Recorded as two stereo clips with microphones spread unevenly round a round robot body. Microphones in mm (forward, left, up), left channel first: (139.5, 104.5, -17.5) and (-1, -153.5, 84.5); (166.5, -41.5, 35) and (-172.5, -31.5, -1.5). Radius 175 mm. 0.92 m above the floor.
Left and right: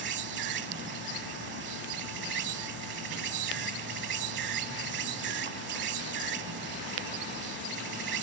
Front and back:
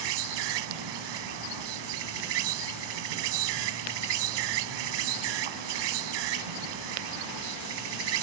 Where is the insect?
Straight behind.